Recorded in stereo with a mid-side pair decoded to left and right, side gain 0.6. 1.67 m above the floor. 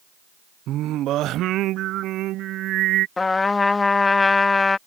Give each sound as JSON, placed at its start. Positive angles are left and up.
{"t": 0.7, "sound": "singing", "azimuth_deg": -60}
{"t": 3.2, "sound": "a trumpet", "azimuth_deg": 20}